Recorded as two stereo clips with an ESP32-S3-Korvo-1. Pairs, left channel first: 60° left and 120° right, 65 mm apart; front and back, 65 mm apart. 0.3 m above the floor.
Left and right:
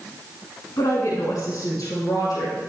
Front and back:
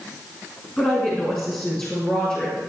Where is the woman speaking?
65° left, 3 m; by 2.6 s 70° left, 4.5 m.